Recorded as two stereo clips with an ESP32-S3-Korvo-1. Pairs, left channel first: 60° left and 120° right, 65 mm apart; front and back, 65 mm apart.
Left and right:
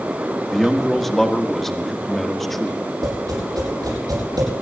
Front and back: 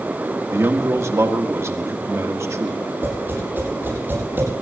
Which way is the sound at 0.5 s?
145° left.